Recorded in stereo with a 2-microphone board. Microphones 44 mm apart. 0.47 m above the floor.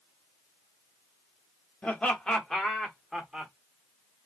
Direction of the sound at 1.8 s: 25° left (ahead or behind).